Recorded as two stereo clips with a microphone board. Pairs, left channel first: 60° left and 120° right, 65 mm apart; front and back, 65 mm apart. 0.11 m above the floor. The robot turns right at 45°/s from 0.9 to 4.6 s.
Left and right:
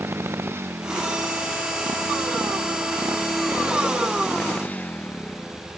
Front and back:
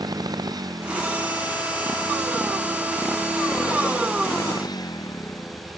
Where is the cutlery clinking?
I don't hear cutlery clinking.